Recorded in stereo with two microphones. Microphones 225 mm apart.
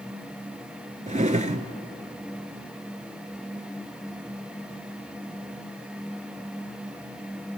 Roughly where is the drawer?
Right.